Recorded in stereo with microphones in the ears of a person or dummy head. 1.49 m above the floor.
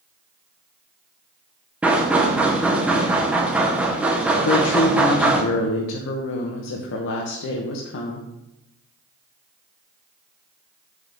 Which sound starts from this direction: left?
A woman speaking, at 4.4 s.